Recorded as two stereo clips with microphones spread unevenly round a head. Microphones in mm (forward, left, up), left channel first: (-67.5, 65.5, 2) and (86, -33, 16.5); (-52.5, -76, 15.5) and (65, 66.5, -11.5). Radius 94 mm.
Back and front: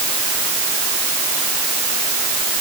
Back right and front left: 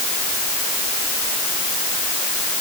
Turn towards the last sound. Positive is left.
No sound to turn to.